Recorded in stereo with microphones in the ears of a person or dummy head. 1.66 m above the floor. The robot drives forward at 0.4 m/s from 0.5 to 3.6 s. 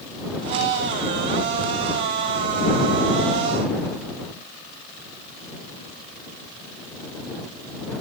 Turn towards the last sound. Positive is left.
No sound to turn to.